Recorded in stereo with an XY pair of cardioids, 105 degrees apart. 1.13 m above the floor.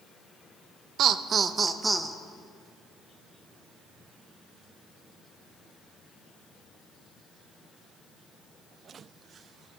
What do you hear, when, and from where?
1.0 s laughter: 70° right, 0.6 m; by 2.2 s 15° right, 0.8 m